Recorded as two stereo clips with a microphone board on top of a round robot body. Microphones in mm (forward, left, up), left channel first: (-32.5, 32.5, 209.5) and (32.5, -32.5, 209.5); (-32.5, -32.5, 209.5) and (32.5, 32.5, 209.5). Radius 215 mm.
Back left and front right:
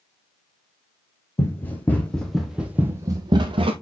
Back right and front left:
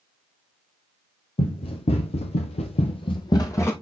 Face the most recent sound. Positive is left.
turn(degrees=-70)